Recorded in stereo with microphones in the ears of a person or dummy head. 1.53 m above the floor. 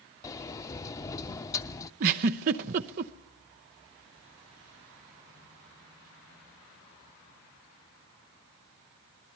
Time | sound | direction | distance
0.2 | a sliding door | 20° left (ahead or behind) | 0.6 m
2.0 | a giggle | 40° right (ahead or behind) | 0.7 m